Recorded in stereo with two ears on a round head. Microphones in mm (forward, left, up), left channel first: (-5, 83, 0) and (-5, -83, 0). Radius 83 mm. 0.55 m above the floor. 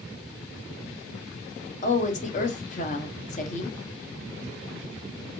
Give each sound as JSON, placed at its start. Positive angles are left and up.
{"t": 1.8, "sound": "a woman speaking", "side_deg": 40, "distance_m": 0.8}